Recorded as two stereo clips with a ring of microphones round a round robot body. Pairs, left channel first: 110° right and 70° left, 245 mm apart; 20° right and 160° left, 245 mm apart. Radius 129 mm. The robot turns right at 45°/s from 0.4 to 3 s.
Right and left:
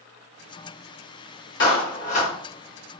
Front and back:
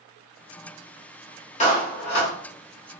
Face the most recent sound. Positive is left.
turn(degrees=-20)